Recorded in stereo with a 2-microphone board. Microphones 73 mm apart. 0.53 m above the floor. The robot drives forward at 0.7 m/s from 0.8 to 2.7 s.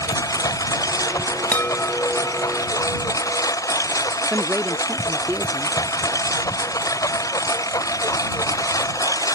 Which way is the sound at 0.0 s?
50° left (ahead or behind).